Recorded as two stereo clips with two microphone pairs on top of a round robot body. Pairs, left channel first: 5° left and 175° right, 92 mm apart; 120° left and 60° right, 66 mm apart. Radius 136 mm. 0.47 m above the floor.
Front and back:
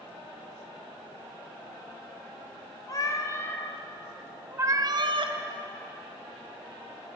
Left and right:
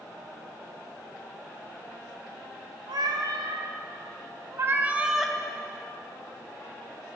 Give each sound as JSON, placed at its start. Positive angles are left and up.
{"t": 2.9, "sound": "a cat meowing", "azimuth_deg": -45, "distance_m": 1.5}